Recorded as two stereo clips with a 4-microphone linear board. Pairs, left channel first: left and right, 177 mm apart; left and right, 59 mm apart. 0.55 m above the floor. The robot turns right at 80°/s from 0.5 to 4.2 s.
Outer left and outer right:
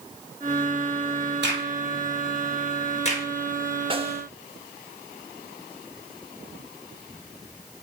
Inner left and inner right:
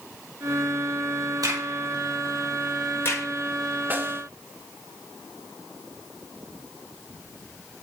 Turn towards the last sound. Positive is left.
turn(degrees=-35)  # may be behind; listen again after turning